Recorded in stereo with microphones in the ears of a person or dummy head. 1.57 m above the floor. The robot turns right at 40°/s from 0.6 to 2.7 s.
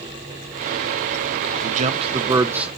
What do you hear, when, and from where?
1.6 s a man speaking: 45° right, 1.5 m; by 2.7 s 5° right, 1.5 m